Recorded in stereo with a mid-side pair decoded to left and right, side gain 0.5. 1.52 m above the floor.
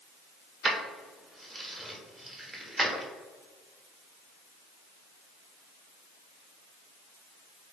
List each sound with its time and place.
0.6 s keys jangling: 20° right, 1.2 m